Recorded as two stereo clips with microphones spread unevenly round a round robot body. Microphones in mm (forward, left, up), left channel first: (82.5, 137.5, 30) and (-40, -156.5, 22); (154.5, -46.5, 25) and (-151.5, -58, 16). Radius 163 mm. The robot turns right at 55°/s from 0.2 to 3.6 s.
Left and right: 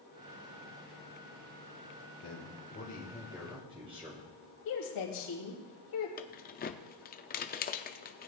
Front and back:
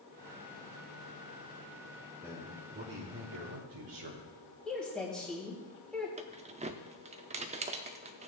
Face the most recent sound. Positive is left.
turn(degrees=120)